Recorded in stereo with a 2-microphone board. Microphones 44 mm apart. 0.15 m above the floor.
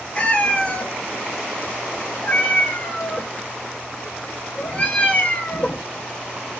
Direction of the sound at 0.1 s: 30° left (ahead or behind).